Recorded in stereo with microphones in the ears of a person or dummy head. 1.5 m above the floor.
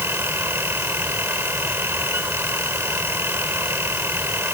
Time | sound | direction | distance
0.0 | a fan | 15° right (ahead or behind) | ?